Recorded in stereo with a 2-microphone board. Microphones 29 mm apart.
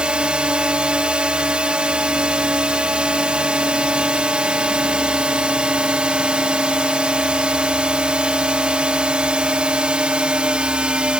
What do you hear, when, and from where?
0.0 s a drone: 45° right (ahead or behind)